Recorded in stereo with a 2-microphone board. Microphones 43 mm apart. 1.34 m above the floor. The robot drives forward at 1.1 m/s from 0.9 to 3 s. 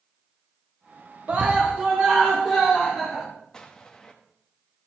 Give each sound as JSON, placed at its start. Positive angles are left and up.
{"t": 1.3, "sound": "a scream", "side_deg": -35, "distance_m": 1.2}
{"t": 3.5, "sound": "an explosion", "side_deg": 15, "distance_m": 1.2}